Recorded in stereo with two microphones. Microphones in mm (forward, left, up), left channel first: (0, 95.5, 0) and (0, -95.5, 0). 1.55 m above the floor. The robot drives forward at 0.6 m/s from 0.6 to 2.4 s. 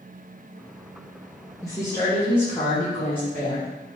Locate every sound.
1.6 s a woman speaking: 20° left (ahead or behind), 0.7 m; by 3.7 s 10° left (ahead or behind), 1.1 m